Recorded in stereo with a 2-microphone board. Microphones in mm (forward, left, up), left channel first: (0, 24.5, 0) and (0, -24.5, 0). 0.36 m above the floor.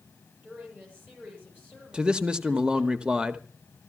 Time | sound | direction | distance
0.4 | a woman speaking | 35° right (ahead or behind) | 8 m
1.9 | a man speaking | 15° right (ahead or behind) | 0.8 m